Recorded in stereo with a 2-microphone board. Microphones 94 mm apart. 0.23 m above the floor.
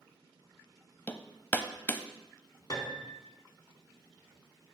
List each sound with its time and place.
1.1 s hammering: 20° left (ahead or behind), 0.5 m
2.7 s a piano: 40° left (ahead or behind), 1.2 m